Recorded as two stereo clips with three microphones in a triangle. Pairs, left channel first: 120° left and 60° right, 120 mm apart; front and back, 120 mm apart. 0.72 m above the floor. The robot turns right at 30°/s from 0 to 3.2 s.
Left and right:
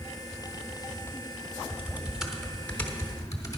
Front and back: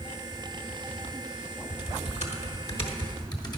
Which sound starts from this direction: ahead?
Typing on a keyboard, at 1.7 s.